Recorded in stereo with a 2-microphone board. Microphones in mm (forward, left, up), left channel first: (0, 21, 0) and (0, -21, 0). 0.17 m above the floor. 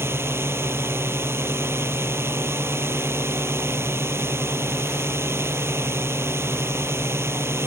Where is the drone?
65° right (ahead or behind); by 7.7 s 70° right (ahead or behind).